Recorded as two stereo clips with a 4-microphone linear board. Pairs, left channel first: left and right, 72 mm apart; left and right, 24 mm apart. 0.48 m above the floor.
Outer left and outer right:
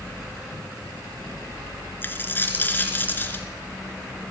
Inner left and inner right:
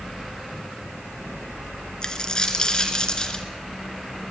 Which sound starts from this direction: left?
A dropped coin, at 2.0 s.